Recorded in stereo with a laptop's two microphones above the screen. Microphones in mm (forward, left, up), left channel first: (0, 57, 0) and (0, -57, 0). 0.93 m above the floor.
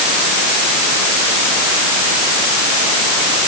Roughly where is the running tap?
I don't hear a running tap.